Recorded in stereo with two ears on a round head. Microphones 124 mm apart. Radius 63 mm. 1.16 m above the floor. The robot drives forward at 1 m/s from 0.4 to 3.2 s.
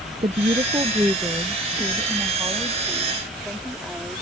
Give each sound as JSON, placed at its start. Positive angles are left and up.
{"t": 0.2, "sound": "a woman speaking", "side_deg": -35}